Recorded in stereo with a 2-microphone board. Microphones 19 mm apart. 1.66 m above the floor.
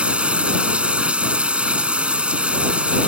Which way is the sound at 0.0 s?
75° right (ahead or behind).